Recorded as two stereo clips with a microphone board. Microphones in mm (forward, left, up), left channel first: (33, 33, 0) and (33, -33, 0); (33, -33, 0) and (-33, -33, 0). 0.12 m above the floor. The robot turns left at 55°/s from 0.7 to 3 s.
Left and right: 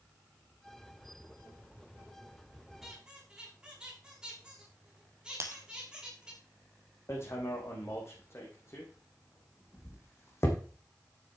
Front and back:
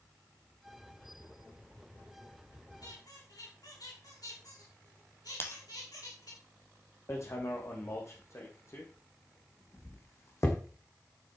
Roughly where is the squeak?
Ahead.